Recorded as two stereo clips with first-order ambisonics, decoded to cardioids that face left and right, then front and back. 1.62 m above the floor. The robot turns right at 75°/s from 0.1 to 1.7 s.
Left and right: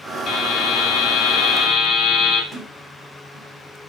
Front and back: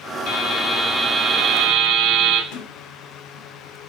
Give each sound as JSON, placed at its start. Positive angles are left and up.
{"t": 0.3, "sound": "a buzzer", "azimuth_deg": 20, "distance_m": 2.5}
{"t": 2.5, "sound": "a sliding door", "azimuth_deg": 10, "distance_m": 2.5}